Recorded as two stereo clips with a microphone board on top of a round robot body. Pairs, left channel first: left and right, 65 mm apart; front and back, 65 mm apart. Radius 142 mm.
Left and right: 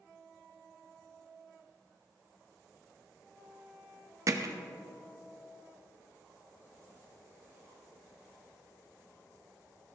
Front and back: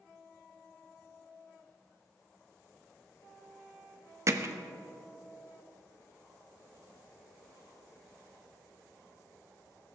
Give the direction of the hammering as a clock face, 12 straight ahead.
4 o'clock.